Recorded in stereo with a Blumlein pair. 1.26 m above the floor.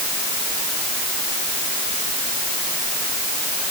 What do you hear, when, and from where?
Only background noise.